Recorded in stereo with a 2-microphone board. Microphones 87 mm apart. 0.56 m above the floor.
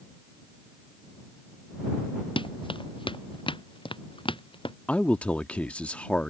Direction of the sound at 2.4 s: 80° left.